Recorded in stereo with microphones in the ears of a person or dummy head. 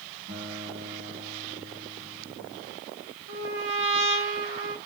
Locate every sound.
0.3 s a guitar: 40° right (ahead or behind), 7 m
3.3 s a trumpet: 75° right (ahead or behind), 2.5 m